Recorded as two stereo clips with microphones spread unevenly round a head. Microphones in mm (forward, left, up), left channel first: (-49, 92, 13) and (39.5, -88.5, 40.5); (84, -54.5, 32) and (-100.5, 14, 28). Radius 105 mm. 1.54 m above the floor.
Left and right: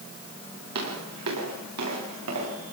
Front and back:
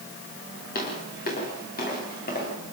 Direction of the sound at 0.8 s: 65° right.